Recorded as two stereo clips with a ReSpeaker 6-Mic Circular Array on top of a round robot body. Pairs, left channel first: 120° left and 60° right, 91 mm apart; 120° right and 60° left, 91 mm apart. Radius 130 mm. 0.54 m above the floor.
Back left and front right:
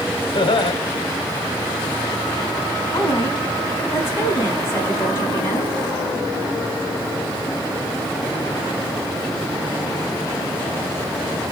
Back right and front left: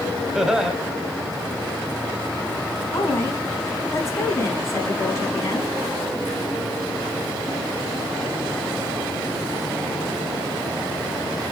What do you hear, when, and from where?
0.3 s laughter: 145° left, 2 m
2.9 s a woman speaking: 175° right, 4.5 m